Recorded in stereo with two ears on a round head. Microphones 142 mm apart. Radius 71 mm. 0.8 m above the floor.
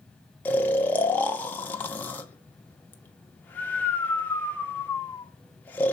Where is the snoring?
10° left (ahead or behind), 0.8 m.